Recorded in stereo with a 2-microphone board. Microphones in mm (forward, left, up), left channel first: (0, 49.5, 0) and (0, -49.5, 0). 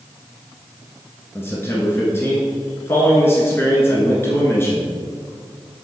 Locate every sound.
1.4 s a man speaking: 25° left (ahead or behind), 1.2 m